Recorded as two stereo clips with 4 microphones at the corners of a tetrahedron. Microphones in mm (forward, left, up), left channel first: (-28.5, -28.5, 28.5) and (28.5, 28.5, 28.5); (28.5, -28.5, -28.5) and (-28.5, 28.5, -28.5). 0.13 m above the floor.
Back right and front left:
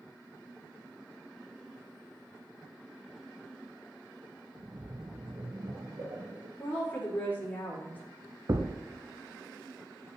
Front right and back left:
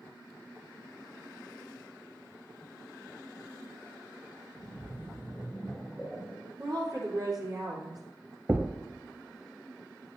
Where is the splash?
40° left, 2.0 m.